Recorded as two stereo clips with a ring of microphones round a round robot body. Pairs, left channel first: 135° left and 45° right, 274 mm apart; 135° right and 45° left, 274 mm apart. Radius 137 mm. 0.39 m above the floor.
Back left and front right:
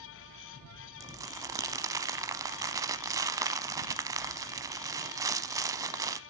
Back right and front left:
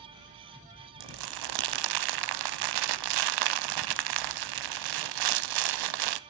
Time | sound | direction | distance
1.0 | crumpling | 35° left | 0.6 m